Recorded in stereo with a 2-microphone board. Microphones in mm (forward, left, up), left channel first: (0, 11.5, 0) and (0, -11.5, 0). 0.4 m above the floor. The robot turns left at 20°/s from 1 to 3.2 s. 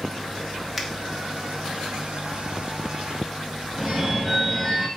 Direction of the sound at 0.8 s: 5° right (ahead or behind).